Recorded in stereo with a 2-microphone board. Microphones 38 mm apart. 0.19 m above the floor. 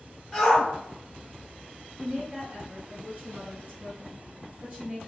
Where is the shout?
5° left (ahead or behind), 1.2 m.